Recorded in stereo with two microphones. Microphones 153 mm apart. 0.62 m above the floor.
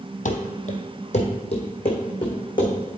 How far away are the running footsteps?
About 1.1 m.